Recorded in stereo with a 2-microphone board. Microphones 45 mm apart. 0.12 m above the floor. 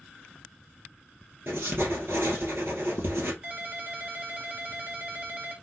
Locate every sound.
1.5 s writing: 60° right (ahead or behind), 2.5 m
3.4 s a ringtone: 30° right (ahead or behind), 1.2 m